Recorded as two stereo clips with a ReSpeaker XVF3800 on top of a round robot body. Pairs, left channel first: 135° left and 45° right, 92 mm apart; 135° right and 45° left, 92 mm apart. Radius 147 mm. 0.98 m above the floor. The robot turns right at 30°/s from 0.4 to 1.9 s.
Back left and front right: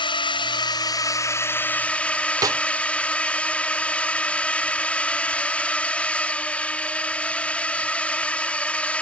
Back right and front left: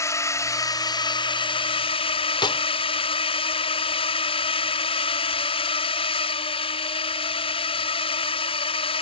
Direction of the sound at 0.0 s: 165° left.